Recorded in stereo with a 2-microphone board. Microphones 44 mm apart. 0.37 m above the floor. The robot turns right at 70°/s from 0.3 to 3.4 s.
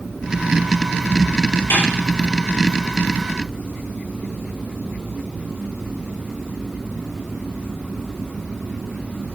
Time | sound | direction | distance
1.7 | a snare drum | 70° left (ahead or behind) | 7 m